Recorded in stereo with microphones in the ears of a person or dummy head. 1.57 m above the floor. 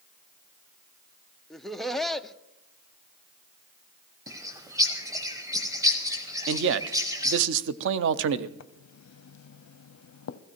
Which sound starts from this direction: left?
Writing, at 8.6 s.